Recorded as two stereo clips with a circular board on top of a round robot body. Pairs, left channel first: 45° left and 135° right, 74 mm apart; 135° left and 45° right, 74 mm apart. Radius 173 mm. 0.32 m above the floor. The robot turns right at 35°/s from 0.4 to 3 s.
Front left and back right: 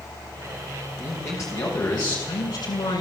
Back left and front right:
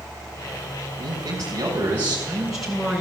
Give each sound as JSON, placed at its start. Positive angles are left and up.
{"t": 1.0, "sound": "a man speaking", "azimuth_deg": -20, "distance_m": 5.0}